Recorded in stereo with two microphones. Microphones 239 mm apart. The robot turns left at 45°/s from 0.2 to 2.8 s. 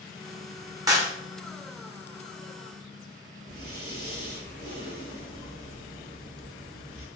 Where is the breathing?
40° right (ahead or behind), 0.9 m.